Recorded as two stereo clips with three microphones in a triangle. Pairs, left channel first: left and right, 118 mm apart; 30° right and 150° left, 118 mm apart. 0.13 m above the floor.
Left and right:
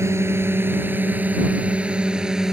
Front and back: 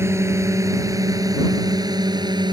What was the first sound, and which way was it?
A drone, 150° right.